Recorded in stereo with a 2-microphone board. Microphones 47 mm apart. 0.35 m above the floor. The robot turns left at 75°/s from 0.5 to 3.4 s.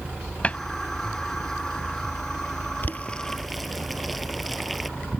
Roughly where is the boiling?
Left.